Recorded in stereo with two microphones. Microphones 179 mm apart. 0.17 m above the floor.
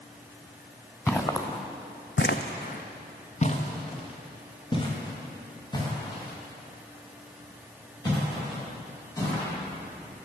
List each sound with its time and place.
1.1 s footsteps: 15° left (ahead or behind), 1.1 m; by 9.5 s 20° left (ahead or behind), 6.5 m